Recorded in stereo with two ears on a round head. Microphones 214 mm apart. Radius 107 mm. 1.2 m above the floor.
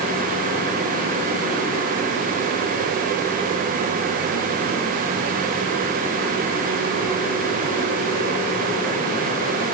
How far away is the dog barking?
No dog barking in this recording.